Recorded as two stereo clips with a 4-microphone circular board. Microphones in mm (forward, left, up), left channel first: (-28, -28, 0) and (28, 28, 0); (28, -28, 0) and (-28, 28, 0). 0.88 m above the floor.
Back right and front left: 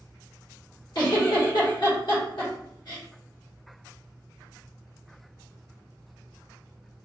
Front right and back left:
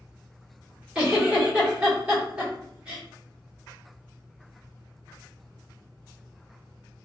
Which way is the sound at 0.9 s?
150° right.